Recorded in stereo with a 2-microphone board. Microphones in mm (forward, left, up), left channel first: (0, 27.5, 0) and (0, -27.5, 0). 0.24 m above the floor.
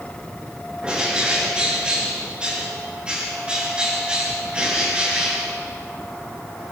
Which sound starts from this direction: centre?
A bird, at 0.8 s.